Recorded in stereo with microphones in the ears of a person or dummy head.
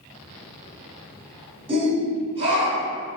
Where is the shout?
30° right (ahead or behind), 0.8 m.